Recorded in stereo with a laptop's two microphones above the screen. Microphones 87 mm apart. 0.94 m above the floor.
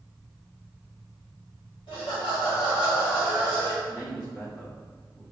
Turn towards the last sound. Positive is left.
turn(degrees=30)  # may be behind; listen again after turning